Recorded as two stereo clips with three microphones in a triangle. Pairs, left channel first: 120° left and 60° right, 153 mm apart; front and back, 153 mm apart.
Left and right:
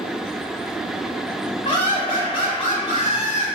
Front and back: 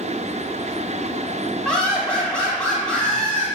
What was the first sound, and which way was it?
Laughter, 80° left.